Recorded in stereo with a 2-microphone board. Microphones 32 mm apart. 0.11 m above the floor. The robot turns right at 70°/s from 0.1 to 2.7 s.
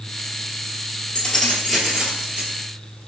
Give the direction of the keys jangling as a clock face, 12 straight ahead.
7 o'clock.